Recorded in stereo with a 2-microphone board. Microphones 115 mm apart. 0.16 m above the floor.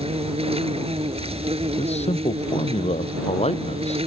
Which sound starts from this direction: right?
An insect, at 0.0 s.